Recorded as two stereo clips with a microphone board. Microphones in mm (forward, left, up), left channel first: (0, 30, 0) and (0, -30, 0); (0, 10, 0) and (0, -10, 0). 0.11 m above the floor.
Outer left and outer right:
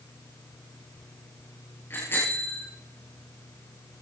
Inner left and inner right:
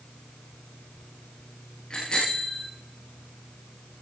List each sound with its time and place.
1.9 s a bicycle bell: 40° left (ahead or behind), 9 m